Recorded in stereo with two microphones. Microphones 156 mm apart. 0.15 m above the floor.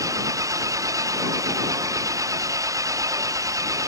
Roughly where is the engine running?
Right.